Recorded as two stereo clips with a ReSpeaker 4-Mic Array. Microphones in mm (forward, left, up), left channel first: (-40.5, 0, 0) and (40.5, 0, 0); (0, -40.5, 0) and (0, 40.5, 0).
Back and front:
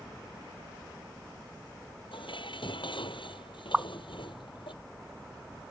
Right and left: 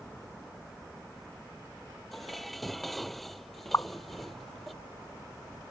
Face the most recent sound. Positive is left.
turn(degrees=-70)